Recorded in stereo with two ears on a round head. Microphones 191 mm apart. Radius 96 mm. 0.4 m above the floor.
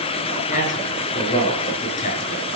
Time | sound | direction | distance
0.5 | a man speaking | 35° left (ahead or behind) | 7 m